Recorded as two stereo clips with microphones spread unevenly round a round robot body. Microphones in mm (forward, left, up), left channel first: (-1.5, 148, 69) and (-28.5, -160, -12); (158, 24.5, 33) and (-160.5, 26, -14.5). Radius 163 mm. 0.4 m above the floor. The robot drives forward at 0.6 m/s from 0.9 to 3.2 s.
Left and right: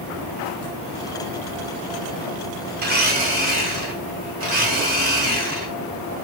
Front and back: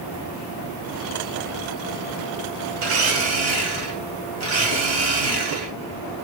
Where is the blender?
140° right, 2 m; by 5.7 s 145° right, 2.5 m.